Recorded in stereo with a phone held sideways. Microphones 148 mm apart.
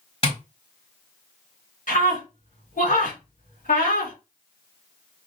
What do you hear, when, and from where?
0.2 s tapping: 40° left (ahead or behind), 2 m
1.9 s a scream: 65° left (ahead or behind), 2.5 m